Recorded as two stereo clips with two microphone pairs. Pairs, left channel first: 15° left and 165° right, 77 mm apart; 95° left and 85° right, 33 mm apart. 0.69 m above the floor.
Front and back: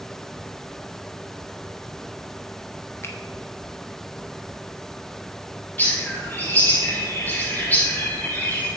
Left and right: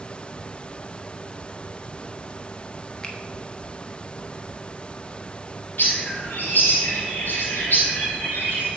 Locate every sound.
3.0 s a finger snap: 45° left, 1.0 m
5.8 s a bird: 85° left, 2.5 m